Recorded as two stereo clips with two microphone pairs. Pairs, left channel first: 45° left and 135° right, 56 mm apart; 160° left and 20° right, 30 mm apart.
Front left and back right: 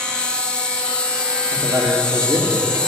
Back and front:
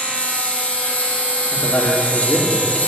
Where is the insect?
120° left, 1.3 m.